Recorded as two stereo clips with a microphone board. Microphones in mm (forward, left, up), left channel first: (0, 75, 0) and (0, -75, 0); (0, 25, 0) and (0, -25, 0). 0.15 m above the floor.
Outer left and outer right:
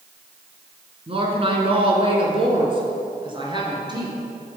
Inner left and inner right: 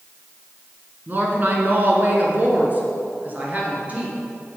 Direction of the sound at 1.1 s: 40° right (ahead or behind).